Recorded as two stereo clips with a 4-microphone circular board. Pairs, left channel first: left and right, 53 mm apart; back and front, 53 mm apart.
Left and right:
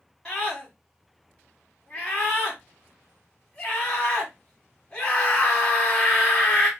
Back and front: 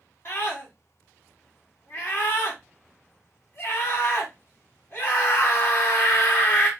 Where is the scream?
160° left, 1.6 m.